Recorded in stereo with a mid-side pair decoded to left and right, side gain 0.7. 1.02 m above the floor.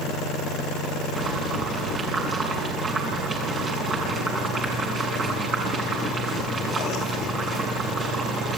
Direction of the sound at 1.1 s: 30° right.